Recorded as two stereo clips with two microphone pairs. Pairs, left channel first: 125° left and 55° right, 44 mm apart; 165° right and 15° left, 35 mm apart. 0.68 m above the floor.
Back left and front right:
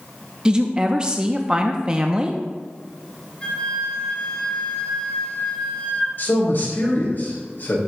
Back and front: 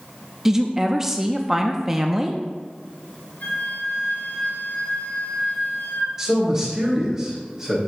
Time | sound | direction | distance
0.5 | a woman speaking | 45° right | 0.6 m
3.4 | a flute | 175° right | 3 m
6.2 | a man speaking | 90° left | 3.5 m